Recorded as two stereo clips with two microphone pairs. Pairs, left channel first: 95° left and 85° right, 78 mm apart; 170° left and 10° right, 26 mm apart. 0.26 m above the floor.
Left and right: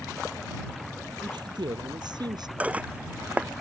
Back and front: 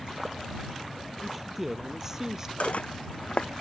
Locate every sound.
1.2 s a man speaking: 90° right; by 2.5 s 70° right
2.6 s dishes clattering: 160° right